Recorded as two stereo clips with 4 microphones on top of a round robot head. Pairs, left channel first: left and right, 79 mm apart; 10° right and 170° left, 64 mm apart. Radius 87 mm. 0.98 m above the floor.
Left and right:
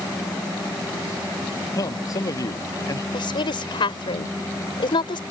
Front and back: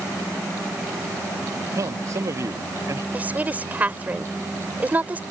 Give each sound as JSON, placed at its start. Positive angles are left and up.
{"t": 1.7, "sound": "a man speaking", "azimuth_deg": 135}
{"t": 3.1, "sound": "a woman speaking", "azimuth_deg": 105}